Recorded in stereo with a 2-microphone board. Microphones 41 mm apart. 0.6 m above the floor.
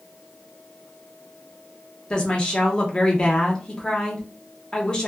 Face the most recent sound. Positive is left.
turn(degrees=25)  # may be behind; listen again after turning